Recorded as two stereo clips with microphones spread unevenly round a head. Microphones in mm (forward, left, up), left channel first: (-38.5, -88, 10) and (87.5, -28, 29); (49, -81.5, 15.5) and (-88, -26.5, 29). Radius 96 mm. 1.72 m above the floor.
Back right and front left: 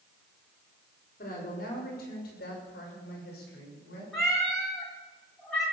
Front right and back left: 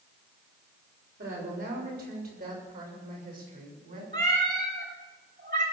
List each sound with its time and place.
1.2 s a woman speaking: 165° left, 6.5 m; by 4.0 s 170° right, 7 m
4.1 s a cat meowing: 110° left, 3 m